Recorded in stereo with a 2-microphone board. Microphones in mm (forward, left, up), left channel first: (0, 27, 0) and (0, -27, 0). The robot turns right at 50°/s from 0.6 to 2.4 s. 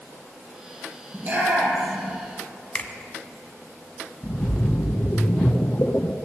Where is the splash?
40° left (ahead or behind), 0.6 m.